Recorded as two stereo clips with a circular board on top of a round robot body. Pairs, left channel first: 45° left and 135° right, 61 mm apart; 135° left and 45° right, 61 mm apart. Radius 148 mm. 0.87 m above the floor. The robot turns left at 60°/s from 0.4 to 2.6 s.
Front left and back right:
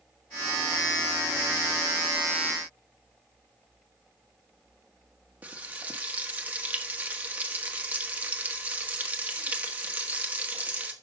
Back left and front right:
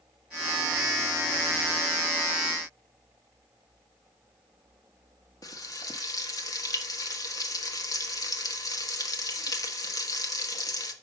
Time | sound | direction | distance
5.4 | frying | 160° left | 1.5 m